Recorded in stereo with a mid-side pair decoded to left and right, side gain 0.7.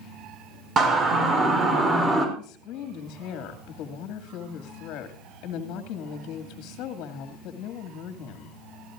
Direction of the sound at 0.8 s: 30° right.